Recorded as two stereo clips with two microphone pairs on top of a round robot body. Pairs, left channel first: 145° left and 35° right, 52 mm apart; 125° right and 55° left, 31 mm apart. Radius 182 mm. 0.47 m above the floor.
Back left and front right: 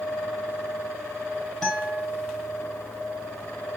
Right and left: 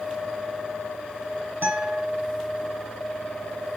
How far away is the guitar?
About 0.9 m.